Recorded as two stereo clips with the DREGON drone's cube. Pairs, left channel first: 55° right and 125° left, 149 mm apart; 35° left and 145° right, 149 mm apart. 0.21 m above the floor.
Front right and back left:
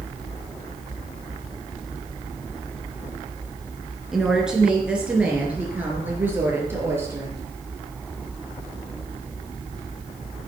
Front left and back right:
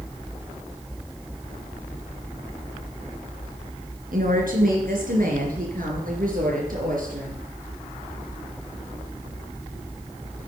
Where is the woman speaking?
150° right, 3 m; by 7.5 s 165° right, 4.5 m.